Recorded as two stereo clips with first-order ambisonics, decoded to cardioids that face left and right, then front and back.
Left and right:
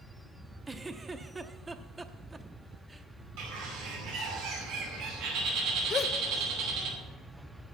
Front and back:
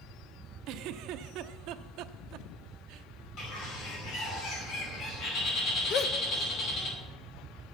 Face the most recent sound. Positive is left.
turn(degrees=35)